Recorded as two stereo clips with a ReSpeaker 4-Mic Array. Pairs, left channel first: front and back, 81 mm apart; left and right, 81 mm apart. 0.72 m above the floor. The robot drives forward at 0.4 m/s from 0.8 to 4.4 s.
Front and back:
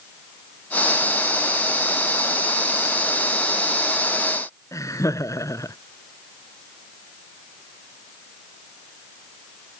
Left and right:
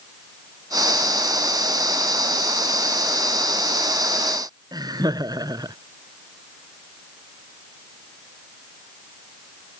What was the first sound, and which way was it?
Laughter, 50° right.